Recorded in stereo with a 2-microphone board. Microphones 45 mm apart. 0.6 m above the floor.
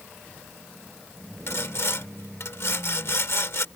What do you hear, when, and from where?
1.5 s sawing: 65° left (ahead or behind)